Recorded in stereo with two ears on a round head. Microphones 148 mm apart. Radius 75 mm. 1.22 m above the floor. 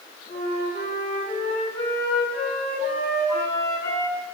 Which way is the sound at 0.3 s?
35° left (ahead or behind).